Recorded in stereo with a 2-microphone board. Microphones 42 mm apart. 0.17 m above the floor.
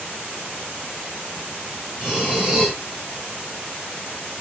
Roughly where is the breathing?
Centre.